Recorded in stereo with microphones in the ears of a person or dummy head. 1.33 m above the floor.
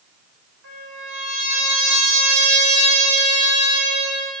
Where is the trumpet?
70° right (ahead or behind), 5 m.